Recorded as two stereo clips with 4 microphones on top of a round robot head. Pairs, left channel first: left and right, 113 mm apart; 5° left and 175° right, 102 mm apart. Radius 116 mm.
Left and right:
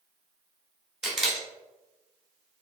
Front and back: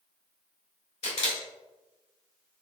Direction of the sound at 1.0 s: 5° right.